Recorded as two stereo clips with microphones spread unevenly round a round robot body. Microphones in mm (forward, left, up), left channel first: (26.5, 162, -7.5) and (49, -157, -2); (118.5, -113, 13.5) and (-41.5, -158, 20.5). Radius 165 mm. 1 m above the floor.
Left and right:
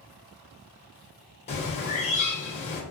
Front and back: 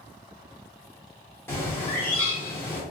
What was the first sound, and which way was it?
A bird, 60° left.